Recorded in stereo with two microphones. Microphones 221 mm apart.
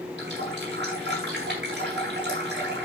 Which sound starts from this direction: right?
A running tap, at 0.2 s.